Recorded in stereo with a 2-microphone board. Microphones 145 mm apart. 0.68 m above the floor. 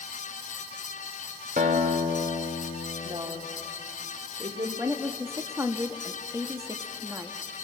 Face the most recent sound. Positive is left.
turn(degrees=-20)  # may be behind; listen again after turning